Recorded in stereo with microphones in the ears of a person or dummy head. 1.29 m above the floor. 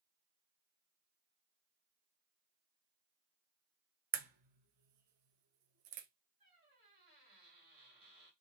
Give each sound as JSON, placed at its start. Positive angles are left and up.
{"t": 4.1, "sound": "a crack", "side_deg": -45, "distance_m": 0.5}
{"t": 6.4, "sound": "a squeak", "side_deg": -50, "distance_m": 1.9}